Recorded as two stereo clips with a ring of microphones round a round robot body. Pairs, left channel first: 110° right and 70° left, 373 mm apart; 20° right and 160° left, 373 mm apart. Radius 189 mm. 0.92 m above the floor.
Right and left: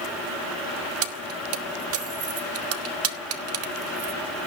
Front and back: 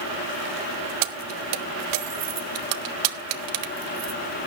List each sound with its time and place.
1.0 s keys jangling: 120° left, 1.4 m